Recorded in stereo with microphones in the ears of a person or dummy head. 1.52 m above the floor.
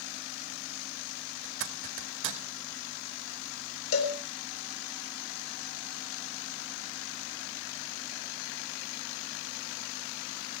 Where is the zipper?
70° right (ahead or behind), 2.0 m.